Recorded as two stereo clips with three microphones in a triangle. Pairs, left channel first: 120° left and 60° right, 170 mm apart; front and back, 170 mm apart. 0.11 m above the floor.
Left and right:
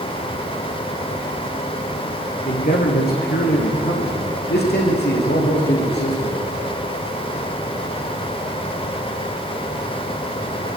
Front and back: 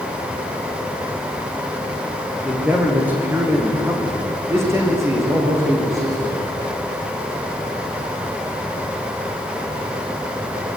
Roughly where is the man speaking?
Left.